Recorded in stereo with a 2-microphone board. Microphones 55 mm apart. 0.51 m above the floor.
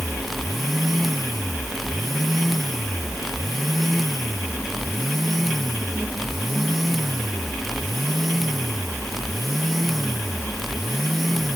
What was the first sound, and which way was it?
Only background noise.